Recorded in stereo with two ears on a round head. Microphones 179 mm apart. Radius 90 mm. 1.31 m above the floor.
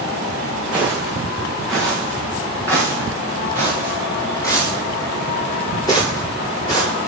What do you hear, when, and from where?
0.7 s footsteps: 5° right (ahead or behind), 4.5 m; by 7.1 s 20° left (ahead or behind), 10 m